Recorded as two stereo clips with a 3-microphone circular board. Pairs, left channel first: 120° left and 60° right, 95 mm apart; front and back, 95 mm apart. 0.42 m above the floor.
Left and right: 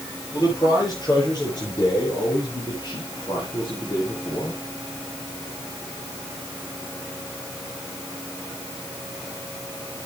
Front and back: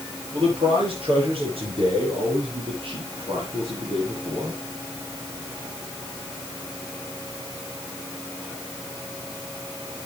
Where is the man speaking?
165° left, 7 m; by 4.6 s 145° left, 2.5 m.